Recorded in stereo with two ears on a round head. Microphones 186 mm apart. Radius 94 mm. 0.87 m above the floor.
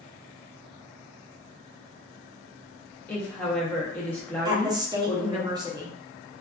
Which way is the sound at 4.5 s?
20° right (ahead or behind).